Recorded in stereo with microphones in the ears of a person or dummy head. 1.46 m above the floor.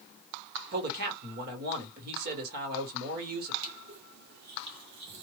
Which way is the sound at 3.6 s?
60° right (ahead or behind).